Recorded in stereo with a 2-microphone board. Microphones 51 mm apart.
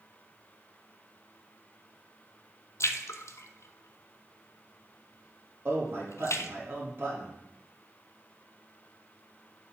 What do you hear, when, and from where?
2.8 s a splash: 75° left (ahead or behind), 0.5 m
5.7 s a man speaking: 50° right (ahead or behind), 4 m